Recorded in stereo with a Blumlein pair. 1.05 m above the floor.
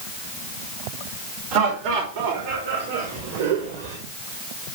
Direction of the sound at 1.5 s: 45° right.